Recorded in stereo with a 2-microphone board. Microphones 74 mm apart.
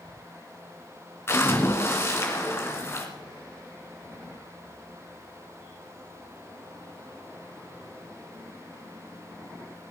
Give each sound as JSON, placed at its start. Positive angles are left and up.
{"t": 1.3, "sound": "a splash", "side_deg": 30, "distance_m": 1.8}